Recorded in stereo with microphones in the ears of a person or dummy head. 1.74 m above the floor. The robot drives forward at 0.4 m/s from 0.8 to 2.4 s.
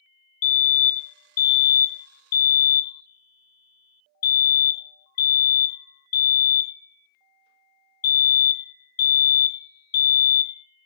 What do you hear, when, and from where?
0.4 s a fire alarm: 35° left (ahead or behind), 0.9 m; by 10.6 s 50° left (ahead or behind), 0.7 m